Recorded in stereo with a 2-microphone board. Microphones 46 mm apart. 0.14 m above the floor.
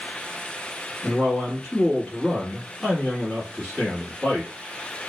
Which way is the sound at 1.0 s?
10° left (ahead or behind).